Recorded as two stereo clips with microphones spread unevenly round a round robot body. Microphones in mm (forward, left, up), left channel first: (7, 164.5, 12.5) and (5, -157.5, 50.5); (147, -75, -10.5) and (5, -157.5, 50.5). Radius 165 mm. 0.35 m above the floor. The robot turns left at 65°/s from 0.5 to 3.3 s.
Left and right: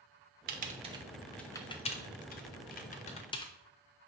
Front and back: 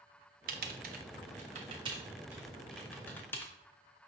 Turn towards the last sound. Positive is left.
turn(degrees=40)